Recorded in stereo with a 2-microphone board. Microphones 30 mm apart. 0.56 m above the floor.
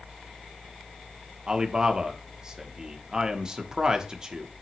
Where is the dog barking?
I don't hear a dog barking.